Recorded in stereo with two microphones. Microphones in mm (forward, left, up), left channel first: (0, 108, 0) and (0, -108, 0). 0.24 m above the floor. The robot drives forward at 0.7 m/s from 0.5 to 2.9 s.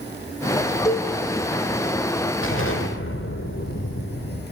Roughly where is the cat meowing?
I don't hear a cat meowing.